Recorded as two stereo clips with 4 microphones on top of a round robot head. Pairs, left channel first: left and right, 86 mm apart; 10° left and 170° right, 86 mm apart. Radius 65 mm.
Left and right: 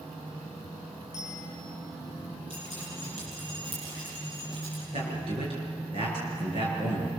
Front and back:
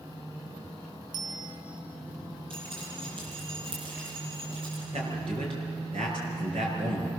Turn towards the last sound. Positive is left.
turn(degrees=-130)